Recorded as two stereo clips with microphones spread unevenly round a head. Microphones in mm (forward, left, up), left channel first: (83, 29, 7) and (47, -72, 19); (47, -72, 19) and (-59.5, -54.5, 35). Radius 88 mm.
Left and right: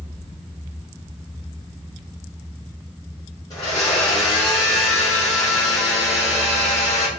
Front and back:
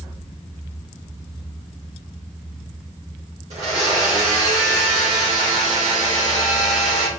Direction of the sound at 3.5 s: 140° left.